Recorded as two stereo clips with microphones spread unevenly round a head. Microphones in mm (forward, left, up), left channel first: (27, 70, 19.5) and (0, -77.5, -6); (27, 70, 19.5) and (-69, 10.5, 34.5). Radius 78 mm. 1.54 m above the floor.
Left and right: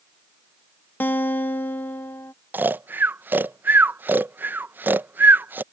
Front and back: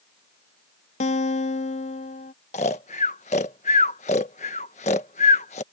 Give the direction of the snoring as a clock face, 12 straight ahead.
1 o'clock.